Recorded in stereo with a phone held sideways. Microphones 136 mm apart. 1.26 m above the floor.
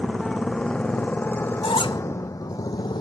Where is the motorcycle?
Centre (ahead or behind); by 3.0 s 35° left (ahead or behind).